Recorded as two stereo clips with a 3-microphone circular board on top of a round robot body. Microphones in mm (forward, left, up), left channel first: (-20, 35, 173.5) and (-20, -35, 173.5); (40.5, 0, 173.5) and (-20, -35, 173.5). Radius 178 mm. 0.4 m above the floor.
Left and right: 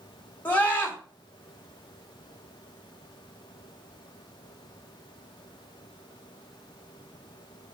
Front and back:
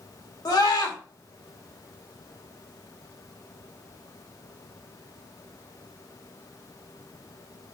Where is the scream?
25° left, 3 m.